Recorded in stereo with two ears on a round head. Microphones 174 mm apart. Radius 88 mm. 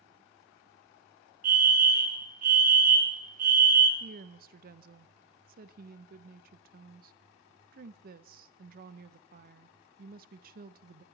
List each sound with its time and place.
1.4 s a fire alarm: 45° right (ahead or behind), 1.5 m
4.0 s a woman speaking: 50° right (ahead or behind), 0.6 m